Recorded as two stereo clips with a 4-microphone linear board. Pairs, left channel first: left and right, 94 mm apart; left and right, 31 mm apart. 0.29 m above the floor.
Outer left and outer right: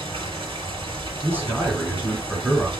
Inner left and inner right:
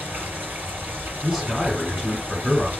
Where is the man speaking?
20° right (ahead or behind), 2.5 m.